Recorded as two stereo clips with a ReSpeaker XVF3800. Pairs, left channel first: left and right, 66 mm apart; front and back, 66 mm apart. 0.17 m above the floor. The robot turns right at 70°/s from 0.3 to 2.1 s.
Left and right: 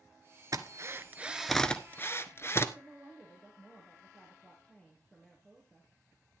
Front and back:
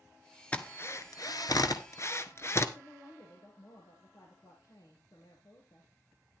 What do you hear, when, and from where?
0.5 s a drill: 70° right, 1.1 m; by 2.6 s 40° left, 1.1 m
2.8 s a woman speaking: 15° left, 2.5 m